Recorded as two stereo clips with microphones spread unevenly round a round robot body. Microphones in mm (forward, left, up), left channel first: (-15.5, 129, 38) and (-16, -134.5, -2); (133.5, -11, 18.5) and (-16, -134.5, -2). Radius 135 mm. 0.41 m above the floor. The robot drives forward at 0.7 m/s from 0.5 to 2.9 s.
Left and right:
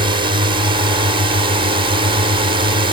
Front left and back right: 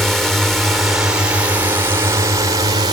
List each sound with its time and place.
0.0 s a drone: 60° right; by 2.9 s 115° right